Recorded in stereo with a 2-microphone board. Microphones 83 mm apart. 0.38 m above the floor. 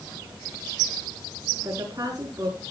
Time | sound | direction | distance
1.6 | a woman speaking | 45° right (ahead or behind) | 4.5 m